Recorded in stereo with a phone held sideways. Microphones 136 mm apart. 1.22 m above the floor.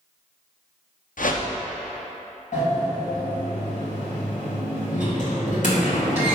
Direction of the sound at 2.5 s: 70° left (ahead or behind).